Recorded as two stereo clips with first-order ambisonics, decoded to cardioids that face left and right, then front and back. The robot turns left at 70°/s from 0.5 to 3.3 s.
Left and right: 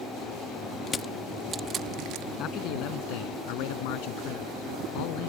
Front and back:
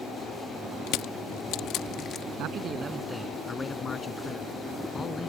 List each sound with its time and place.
0.9 s crushing: 30° left; by 2.3 s 70° right
2.4 s a man speaking: 140° left; by 5.3 s 75° left